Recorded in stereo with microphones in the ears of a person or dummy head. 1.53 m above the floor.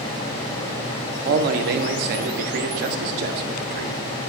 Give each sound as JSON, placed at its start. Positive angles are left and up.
{"t": 1.2, "sound": "a man speaking", "side_deg": -55, "distance_m": 0.7}